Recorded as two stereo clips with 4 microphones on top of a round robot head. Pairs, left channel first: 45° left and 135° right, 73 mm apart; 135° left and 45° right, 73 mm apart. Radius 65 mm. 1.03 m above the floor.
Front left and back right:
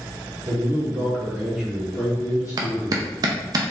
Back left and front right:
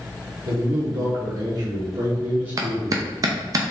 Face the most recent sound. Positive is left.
turn(degrees=-90)